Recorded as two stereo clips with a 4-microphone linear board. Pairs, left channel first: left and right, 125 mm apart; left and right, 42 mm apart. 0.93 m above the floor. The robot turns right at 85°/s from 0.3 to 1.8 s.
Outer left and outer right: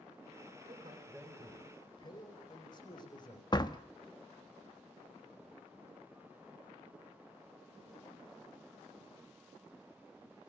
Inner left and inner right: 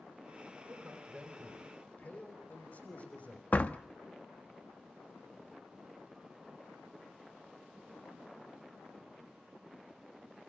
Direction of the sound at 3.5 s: 35° left (ahead or behind).